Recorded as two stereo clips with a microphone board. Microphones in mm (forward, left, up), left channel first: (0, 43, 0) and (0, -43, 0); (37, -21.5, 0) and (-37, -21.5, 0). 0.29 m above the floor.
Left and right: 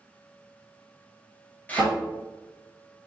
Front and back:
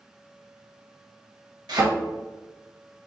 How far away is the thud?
About 1.2 m.